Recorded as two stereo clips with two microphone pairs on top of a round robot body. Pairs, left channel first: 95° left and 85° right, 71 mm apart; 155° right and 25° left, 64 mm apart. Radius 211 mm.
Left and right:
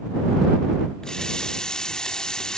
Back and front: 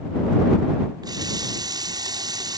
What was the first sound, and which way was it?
A running tap, 15° left.